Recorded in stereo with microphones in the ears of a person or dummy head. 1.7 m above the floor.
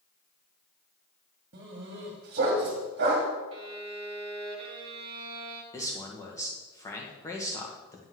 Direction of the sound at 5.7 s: 15° left (ahead or behind).